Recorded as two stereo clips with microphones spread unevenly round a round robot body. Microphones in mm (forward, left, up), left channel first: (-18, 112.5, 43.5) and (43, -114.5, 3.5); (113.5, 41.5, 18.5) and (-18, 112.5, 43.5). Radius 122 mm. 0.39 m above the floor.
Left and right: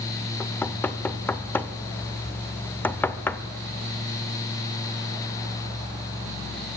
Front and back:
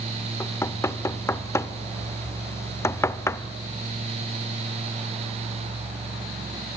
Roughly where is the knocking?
Ahead.